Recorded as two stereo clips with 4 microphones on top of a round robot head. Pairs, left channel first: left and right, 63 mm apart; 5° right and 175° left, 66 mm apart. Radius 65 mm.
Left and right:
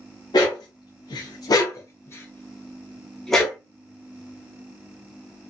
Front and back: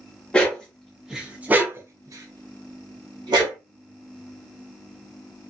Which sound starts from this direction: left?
A dog barking, at 0.3 s.